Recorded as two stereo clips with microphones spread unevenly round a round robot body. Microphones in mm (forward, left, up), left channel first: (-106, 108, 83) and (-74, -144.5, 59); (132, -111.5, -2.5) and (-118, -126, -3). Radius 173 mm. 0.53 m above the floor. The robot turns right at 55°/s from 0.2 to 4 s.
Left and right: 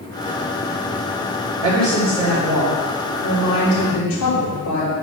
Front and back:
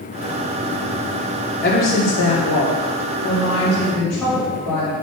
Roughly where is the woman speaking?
Ahead right.